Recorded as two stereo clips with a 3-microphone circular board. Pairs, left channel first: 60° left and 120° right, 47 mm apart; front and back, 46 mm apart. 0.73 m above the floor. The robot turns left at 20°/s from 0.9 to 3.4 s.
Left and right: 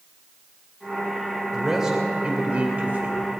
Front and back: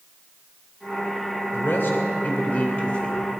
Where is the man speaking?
35° right, 2.5 m; by 3.2 s 70° right, 2.5 m.